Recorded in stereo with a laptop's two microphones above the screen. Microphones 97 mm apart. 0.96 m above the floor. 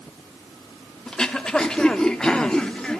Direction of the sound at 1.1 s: 10° left (ahead or behind).